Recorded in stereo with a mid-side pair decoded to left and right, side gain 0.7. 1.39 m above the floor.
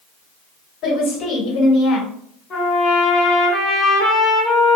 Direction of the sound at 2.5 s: 40° left.